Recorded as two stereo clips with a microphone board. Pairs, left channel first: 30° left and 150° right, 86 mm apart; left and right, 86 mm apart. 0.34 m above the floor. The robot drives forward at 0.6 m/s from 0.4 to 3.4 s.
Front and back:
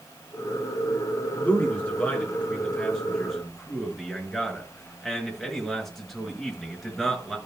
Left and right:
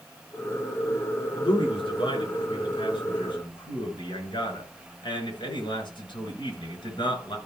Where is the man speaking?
100° left, 4 m; by 7.4 s 115° left, 4.5 m.